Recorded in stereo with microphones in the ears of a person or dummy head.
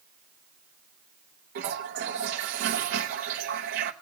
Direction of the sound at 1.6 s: 45° right (ahead or behind).